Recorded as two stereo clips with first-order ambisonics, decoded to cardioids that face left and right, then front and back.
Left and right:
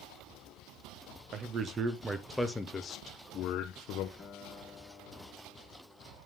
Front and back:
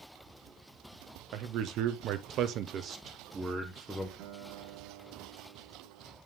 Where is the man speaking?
145° right, 1.0 m; by 4.1 s 95° left, 1.0 m.